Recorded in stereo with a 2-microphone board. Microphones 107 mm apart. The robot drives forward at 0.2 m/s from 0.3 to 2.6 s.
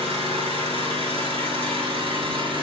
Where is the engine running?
70° right (ahead or behind), 1.1 m; by 2.6 s 55° right (ahead or behind), 1.2 m.